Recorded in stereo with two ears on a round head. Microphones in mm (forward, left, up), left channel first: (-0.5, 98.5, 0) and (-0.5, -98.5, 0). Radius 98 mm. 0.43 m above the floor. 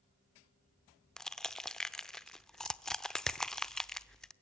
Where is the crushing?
5° left (ahead or behind), 0.7 m.